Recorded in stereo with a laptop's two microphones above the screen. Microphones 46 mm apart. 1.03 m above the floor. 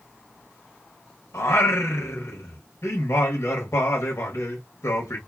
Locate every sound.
1.3 s singing: 85° left, 1.1 m